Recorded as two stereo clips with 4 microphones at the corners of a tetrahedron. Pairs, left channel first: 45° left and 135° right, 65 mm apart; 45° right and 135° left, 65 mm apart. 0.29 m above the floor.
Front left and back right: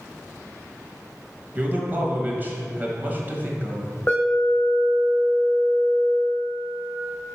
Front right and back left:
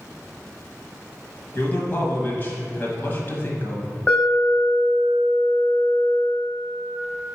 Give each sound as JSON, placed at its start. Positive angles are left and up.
{"t": 1.6, "sound": "a man speaking", "azimuth_deg": -85, "distance_m": 1.3}
{"t": 4.1, "sound": "an alarm", "azimuth_deg": 10, "distance_m": 1.6}